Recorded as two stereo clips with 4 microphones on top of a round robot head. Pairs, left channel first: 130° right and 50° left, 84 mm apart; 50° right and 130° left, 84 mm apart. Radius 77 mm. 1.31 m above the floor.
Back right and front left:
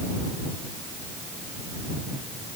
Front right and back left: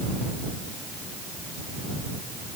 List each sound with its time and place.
Only background noise.